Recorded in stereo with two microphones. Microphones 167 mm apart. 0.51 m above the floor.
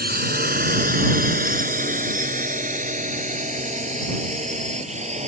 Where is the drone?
65° right (ahead or behind); by 5.3 s 40° right (ahead or behind).